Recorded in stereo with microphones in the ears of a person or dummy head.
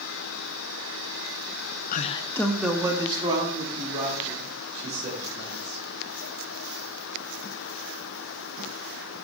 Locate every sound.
1.9 s a man speaking: 50° left (ahead or behind), 0.6 m; by 5.8 s 40° right (ahead or behind), 3.5 m